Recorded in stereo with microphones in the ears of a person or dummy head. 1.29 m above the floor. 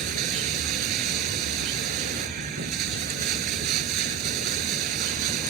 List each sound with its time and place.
0.0 s running water: 45° right (ahead or behind)